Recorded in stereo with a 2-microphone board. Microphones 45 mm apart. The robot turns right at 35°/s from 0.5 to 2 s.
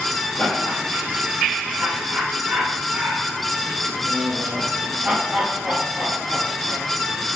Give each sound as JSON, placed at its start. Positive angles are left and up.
{"t": 0.4, "sound": "laughter", "side_deg": 30, "distance_m": 7.0}